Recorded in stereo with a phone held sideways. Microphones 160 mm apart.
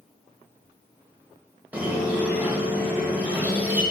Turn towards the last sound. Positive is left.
turn(degrees=-10)  # may be behind; listen again after turning